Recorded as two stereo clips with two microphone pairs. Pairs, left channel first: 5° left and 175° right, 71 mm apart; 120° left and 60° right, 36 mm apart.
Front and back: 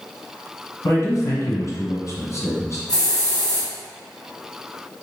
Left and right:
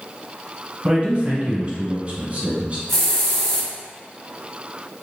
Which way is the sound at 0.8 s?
25° right.